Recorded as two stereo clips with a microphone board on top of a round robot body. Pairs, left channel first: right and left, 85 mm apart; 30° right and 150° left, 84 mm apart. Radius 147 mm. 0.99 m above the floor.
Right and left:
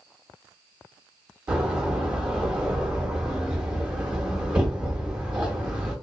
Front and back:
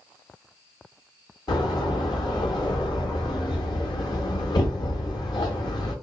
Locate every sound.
1.5 s a door slam: 10° left, 0.8 m